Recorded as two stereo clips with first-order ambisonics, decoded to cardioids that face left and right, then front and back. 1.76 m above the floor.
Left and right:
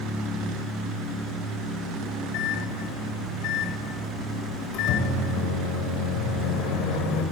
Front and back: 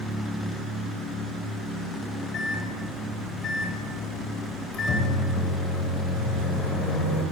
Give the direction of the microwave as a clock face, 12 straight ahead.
10 o'clock.